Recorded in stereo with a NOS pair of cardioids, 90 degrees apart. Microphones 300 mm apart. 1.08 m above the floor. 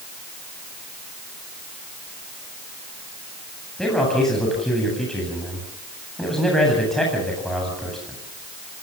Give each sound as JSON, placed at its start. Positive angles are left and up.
{"t": 3.8, "sound": "a man speaking", "azimuth_deg": 0, "distance_m": 8.5}